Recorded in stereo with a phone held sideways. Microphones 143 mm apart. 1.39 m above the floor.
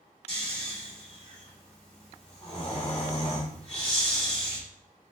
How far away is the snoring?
About 2.5 m.